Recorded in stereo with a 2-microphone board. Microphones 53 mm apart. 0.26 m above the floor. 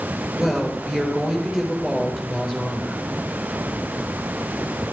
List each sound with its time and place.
0.4 s a woman speaking: 5° right (ahead or behind), 4 m